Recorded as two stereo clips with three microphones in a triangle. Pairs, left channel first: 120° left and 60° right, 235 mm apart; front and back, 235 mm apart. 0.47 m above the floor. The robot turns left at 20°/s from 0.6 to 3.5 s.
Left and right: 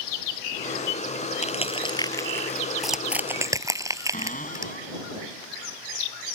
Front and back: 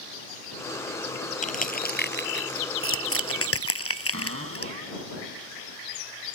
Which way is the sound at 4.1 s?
170° left.